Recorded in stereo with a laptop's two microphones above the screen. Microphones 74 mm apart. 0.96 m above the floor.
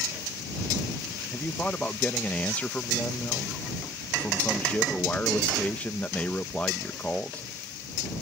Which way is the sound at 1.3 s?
20° left (ahead or behind).